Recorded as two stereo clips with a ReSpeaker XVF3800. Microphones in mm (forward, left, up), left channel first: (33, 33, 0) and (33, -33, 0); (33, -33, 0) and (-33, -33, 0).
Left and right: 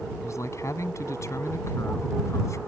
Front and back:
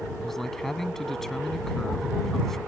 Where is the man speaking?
85° left.